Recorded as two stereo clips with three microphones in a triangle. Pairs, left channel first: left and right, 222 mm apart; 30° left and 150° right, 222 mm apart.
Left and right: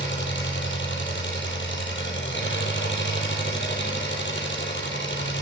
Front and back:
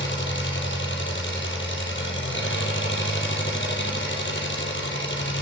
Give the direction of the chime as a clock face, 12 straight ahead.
No chime in this recording.